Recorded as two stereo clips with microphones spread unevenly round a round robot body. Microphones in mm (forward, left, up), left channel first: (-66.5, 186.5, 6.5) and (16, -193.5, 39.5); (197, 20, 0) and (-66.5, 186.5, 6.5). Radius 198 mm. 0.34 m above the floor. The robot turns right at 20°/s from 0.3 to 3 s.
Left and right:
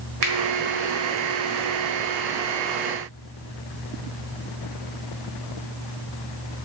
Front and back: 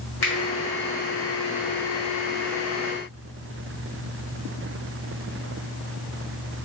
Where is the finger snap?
70° right, 1.3 m.